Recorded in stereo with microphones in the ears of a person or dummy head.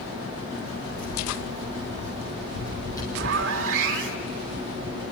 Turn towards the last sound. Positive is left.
turn(degrees=-65)  # may be behind; listen again after turning